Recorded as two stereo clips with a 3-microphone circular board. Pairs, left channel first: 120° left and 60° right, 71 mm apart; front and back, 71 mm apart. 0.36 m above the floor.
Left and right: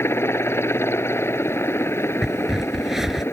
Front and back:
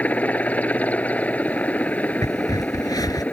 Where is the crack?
25° left.